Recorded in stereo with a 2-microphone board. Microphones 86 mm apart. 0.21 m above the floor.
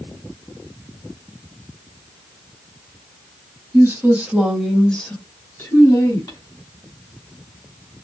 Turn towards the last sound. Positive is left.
turn(degrees=45)  # may be behind; listen again after turning